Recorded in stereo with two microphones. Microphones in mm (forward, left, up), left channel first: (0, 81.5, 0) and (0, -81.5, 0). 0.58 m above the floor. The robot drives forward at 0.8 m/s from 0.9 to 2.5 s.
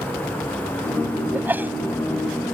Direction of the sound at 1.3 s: 10° right (ahead or behind).